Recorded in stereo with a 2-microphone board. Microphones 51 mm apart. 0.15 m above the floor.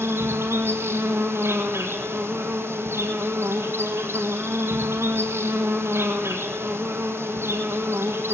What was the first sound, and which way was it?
An insect, 65° right (ahead or behind).